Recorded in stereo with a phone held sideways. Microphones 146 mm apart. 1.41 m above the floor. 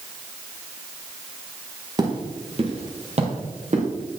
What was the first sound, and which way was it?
Footsteps, 30° right (ahead or behind).